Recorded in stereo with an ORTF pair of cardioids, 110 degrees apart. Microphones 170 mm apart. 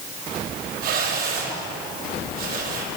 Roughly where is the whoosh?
Right.